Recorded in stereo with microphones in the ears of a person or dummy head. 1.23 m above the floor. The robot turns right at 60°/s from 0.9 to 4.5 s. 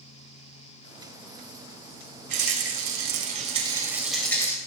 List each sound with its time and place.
2.3 s a rattle: 115° right, 3.5 m; by 4.6 s 20° left, 3.5 m